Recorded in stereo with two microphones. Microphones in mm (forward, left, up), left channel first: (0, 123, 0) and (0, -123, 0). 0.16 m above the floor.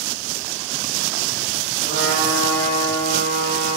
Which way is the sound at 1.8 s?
45° left (ahead or behind).